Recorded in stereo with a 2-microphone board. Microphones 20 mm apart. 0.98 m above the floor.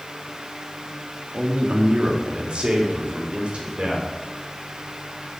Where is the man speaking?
75° right (ahead or behind), 1.3 m; by 4.1 s 60° right (ahead or behind), 2.5 m.